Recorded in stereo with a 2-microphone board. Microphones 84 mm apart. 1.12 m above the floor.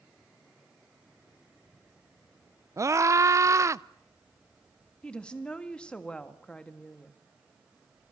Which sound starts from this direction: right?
A scream, at 2.8 s.